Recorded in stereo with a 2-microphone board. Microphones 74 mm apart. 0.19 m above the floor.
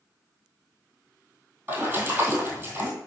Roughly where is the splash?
Right.